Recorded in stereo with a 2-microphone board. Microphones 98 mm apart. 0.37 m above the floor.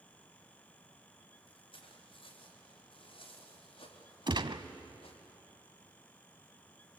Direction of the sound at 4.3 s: 55° right (ahead or behind).